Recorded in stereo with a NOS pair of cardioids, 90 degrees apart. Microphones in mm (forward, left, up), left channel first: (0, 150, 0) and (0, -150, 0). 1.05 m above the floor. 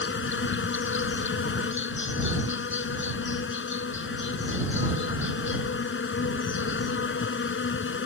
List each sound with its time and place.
0.0 s an insect: 40° left